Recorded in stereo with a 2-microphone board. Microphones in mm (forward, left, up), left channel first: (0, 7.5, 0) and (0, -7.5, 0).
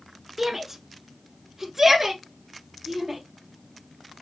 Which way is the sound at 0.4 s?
15° right (ahead or behind).